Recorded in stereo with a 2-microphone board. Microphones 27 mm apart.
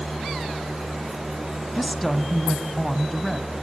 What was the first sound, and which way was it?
A woman speaking, 5° left (ahead or behind).